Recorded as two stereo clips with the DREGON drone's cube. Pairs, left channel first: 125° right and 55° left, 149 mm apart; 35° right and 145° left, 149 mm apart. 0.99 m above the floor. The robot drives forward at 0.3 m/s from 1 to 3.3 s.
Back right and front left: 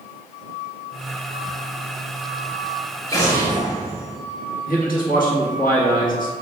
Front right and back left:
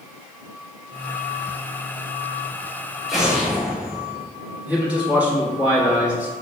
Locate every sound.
3.1 s an explosion: 125° right, 0.7 m; by 4.2 s 135° right, 0.7 m
4.7 s a man speaking: 135° right, 1.2 m